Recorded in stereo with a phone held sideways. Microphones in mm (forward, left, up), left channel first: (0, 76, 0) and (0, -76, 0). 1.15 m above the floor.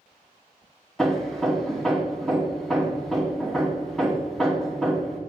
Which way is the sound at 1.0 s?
Centre (ahead or behind).